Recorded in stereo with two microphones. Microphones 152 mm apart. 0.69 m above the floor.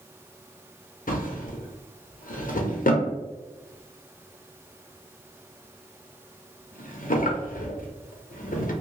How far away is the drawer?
About 0.6 m.